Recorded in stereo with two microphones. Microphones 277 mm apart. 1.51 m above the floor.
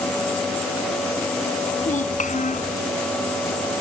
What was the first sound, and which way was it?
A child speaking, 25° left (ahead or behind).